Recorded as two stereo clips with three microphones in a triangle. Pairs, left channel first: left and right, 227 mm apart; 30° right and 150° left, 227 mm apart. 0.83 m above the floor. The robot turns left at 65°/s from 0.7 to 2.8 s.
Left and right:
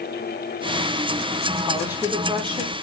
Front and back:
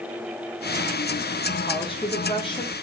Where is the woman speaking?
5° right, 0.6 m; by 2.7 s 75° right, 0.6 m.